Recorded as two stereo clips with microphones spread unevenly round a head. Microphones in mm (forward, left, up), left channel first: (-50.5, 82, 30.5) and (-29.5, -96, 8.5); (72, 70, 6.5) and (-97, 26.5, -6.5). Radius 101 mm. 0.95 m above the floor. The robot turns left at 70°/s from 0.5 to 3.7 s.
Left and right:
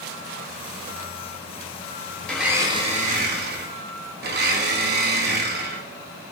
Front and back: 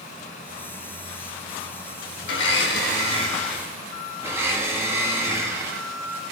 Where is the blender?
10° left, 1.8 m; by 6.3 s 90° right, 1.8 m.